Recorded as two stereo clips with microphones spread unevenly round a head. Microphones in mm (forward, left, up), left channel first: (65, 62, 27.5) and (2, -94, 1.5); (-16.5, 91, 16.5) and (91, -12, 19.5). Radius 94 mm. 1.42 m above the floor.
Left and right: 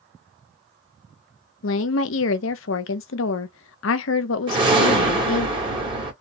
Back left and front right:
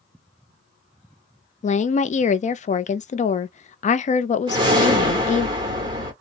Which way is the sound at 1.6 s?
90° left.